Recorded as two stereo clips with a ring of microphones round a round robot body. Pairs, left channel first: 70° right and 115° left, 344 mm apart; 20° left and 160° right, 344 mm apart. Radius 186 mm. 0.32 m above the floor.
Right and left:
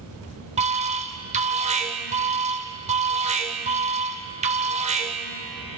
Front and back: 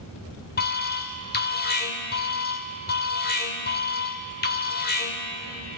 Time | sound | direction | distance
0.6 | an alarm | 60° left | 2 m